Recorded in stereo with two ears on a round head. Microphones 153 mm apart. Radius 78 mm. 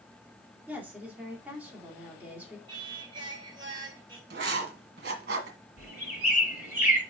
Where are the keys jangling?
I don't hear keys jangling.